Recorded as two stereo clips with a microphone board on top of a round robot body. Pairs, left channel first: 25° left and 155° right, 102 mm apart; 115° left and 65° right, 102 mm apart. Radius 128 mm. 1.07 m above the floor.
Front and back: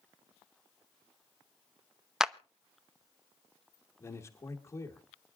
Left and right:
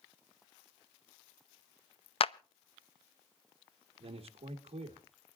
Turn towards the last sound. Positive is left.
turn(degrees=-40)